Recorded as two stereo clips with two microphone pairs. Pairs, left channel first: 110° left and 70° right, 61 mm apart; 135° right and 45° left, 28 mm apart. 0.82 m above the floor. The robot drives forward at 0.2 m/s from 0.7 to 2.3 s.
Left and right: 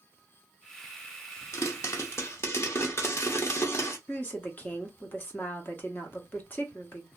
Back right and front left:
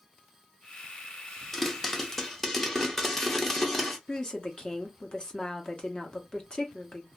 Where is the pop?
140° left, 0.7 m; by 4.0 s 145° left, 0.8 m.